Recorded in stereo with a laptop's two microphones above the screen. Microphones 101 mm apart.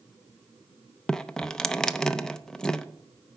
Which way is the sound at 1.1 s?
5° left (ahead or behind).